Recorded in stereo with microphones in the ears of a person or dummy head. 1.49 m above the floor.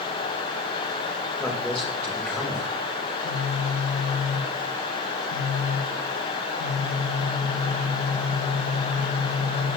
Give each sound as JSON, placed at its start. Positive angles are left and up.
{"t": 1.4, "sound": "a man speaking", "side_deg": 10, "distance_m": 1.5}
{"t": 3.0, "sound": "a phone buzzing", "side_deg": 60, "distance_m": 1.3}